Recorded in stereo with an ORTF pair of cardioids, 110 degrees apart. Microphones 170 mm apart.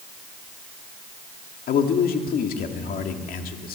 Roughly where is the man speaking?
Ahead left.